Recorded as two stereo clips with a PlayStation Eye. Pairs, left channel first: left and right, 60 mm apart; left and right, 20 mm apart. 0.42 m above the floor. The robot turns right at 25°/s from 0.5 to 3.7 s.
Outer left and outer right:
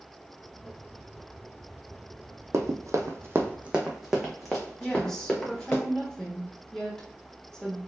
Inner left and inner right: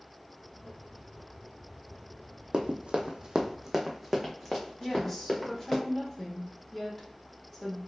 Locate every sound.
2.5 s running footsteps: 55° right (ahead or behind), 0.8 m; by 5.8 s 15° left (ahead or behind), 1.9 m
4.8 s a woman speaking: 10° left (ahead or behind), 1.1 m